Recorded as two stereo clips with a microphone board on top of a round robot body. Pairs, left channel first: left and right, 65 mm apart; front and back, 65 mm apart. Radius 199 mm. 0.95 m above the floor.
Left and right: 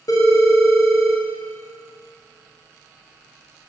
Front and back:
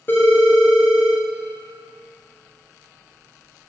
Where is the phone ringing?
60° left, 1.7 m.